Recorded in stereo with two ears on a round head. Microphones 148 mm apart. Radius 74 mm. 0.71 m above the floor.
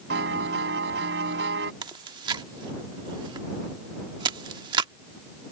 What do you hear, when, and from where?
0.1 s a piano: 85° right
1.8 s chewing: 30° right (ahead or behind)